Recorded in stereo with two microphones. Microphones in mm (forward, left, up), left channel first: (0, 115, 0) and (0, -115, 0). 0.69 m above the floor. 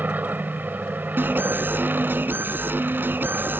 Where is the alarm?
10° right (ahead or behind).